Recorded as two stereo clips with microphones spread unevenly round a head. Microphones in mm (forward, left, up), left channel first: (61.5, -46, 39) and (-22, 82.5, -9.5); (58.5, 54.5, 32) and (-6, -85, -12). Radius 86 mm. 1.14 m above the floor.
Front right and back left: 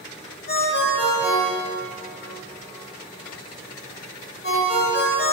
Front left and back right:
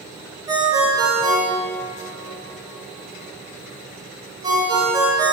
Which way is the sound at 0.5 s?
45° right.